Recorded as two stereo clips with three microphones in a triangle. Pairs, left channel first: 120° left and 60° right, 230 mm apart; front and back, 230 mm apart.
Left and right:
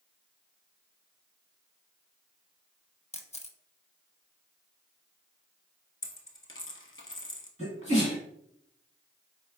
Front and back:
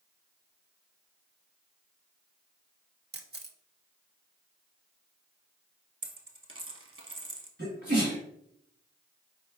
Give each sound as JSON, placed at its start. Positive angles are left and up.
{"t": 3.1, "sound": "a camera shutter", "azimuth_deg": 170, "distance_m": 0.5}
{"t": 6.0, "sound": "a dropped coin", "azimuth_deg": 150, "distance_m": 0.8}
{"t": 7.6, "sound": "a sneeze", "azimuth_deg": 170, "distance_m": 1.6}